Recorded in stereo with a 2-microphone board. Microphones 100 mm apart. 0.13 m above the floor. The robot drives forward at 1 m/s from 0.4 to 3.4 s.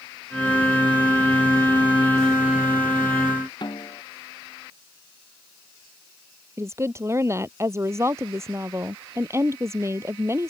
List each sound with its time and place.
3.6 s a snare drum: 50° left (ahead or behind)
6.6 s a woman speaking: 30° right (ahead or behind)